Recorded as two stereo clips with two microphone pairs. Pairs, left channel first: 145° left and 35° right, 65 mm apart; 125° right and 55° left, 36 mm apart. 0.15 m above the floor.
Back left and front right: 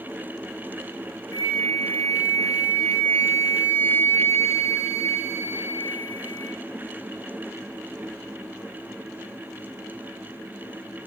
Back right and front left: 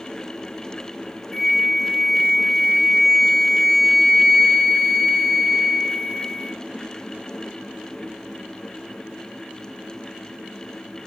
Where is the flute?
150° left, 0.5 m.